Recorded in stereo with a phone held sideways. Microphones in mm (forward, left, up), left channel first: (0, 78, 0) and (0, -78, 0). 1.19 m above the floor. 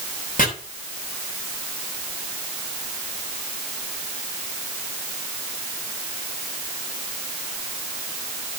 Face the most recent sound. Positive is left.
turn(degrees=60)  # may be behind; listen again after turning